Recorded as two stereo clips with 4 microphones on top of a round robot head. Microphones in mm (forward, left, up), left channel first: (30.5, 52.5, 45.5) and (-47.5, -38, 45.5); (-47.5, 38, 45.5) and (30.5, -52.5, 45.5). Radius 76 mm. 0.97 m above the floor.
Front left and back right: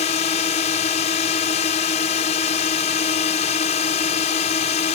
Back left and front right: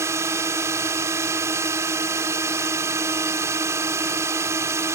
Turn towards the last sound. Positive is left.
turn(degrees=20)